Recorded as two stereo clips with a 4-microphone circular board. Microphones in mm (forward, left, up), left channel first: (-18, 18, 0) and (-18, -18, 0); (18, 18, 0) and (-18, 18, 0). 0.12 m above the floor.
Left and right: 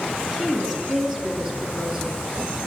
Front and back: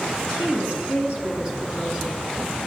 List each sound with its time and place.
0.2 s a woman speaking: 170° right, 2.5 m; by 2.2 s 115° right, 1.7 m